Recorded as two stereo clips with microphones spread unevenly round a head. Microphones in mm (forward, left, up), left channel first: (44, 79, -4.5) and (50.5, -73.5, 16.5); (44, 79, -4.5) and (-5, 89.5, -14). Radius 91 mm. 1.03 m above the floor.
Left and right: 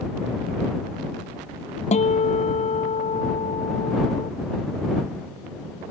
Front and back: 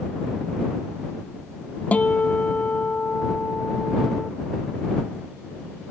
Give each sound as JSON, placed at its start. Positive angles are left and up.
{"t": 1.9, "sound": "a guitar", "azimuth_deg": 45}